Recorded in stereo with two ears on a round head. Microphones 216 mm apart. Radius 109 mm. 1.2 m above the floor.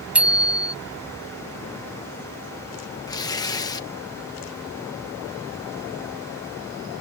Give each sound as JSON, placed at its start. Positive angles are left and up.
{"t": 0.1, "sound": "a bicycle bell", "side_deg": -5}
{"t": 3.1, "sound": "tearing paper", "side_deg": 15}